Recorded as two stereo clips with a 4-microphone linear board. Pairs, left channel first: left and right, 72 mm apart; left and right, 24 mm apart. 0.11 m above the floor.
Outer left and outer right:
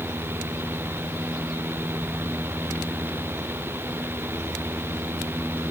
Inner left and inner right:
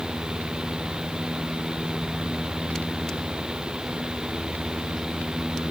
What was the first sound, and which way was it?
Only background noise.